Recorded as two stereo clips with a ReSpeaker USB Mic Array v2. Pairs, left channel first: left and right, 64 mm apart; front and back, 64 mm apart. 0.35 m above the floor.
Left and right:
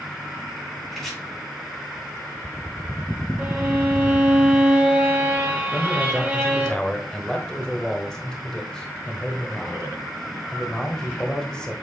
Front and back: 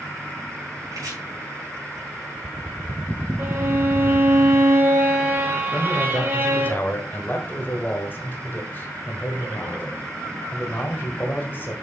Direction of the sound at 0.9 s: 175° left.